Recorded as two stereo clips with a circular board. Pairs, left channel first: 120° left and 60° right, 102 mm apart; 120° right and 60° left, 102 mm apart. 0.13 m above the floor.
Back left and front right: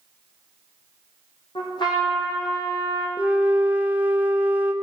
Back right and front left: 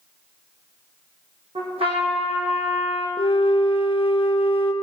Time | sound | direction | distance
1.6 | a trumpet | 80° left | 3.5 m
3.2 | a flute | 135° right | 0.7 m